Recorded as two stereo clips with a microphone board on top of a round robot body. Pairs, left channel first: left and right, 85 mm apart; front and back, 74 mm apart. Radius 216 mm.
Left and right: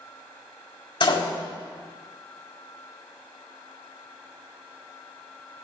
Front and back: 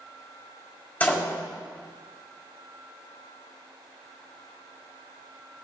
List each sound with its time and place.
1.0 s a door slam: 70° left, 3.5 m